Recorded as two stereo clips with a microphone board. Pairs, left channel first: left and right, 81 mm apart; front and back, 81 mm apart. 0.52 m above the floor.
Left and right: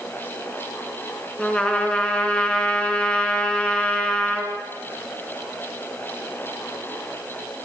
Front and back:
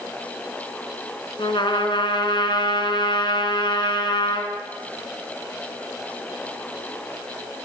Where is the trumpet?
15° left, 4 m.